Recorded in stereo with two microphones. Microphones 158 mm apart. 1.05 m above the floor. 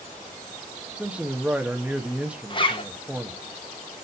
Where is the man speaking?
5° right (ahead or behind), 1.1 m.